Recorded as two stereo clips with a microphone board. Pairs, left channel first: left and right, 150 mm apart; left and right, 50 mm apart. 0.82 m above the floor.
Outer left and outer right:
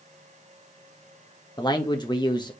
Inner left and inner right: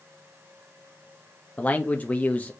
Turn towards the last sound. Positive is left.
turn(degrees=30)  # may be behind; listen again after turning